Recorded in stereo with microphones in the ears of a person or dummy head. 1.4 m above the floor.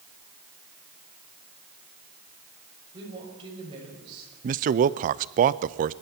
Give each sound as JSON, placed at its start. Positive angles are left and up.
{"t": 2.9, "sound": "a woman speaking", "side_deg": -30, "distance_m": 6.5}
{"t": 4.4, "sound": "a man speaking", "side_deg": -40, "distance_m": 0.5}